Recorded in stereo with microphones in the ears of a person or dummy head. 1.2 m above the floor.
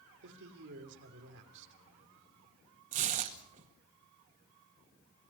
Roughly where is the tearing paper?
Right.